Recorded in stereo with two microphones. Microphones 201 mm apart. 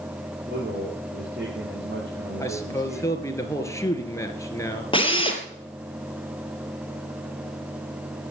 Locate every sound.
0.5 s a man speaking: 70° right (ahead or behind), 5 m
2.4 s a man speaking: 15° left (ahead or behind), 2 m
4.9 s a drill: 25° left (ahead or behind), 2.5 m